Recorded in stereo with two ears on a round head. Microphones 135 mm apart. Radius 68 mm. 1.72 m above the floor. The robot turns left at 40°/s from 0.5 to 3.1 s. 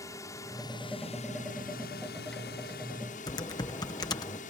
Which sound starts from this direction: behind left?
A drone, at 0.0 s.